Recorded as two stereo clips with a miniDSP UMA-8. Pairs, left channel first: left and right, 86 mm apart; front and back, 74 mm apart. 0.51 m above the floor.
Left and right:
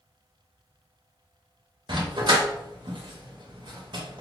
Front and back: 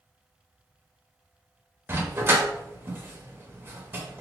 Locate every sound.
1.9 s a dog barking: 120° right, 0.7 m